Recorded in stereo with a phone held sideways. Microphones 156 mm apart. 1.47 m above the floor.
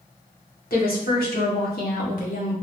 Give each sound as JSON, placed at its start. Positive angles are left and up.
{"t": 0.7, "sound": "a woman speaking", "side_deg": 70, "distance_m": 1.3}